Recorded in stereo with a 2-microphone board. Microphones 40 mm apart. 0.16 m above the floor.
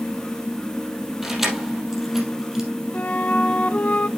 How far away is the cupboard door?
No cupboard door in this recording.